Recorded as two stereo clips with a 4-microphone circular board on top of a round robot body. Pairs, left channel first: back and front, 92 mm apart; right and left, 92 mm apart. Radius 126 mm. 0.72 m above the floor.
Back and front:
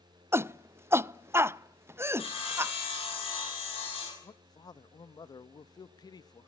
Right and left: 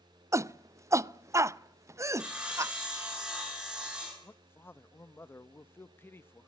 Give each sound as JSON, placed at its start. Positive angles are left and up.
{"t": 0.3, "sound": "a shout", "azimuth_deg": 50, "distance_m": 0.7}
{"t": 2.2, "sound": "sawing", "azimuth_deg": 170, "distance_m": 9.0}
{"t": 4.2, "sound": "a man speaking", "azimuth_deg": -150, "distance_m": 1.0}